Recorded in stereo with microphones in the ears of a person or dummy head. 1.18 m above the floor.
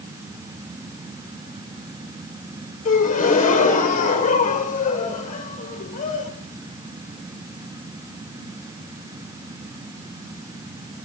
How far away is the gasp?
About 1.7 m.